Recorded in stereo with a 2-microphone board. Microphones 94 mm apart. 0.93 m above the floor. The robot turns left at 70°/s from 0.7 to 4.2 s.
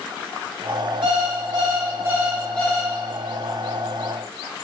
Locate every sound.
1.0 s an alarm clock: 80° right, 1.2 m; by 2.9 s 150° left, 1.2 m